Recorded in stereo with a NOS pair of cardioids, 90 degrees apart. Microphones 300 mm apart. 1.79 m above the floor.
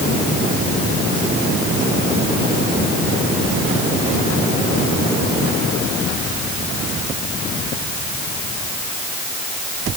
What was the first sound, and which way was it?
Only background noise.